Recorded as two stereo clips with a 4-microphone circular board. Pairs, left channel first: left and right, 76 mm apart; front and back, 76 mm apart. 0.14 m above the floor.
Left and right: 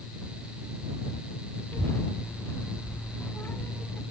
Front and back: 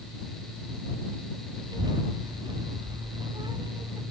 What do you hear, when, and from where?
1.7 s a child speaking: 155° left